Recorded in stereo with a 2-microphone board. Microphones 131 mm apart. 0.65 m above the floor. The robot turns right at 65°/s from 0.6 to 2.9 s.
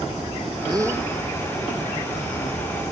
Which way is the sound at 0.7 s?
35° right (ahead or behind).